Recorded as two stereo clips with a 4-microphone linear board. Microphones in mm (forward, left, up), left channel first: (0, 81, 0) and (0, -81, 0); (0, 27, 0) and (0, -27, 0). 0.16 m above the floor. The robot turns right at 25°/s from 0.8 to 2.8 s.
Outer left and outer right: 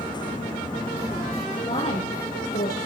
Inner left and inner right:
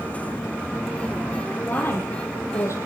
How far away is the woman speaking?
About 4 m.